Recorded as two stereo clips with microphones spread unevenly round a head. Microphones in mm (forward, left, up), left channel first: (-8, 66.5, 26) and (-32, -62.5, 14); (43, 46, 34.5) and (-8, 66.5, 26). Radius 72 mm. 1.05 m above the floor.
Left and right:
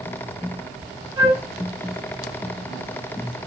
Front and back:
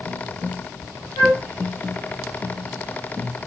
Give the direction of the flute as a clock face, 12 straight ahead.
1 o'clock.